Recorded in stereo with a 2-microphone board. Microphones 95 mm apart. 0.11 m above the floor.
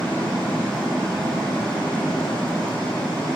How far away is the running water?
About 2.5 m.